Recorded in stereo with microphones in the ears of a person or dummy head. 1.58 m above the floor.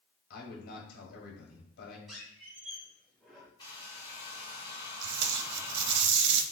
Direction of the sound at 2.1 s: Centre (ahead or behind).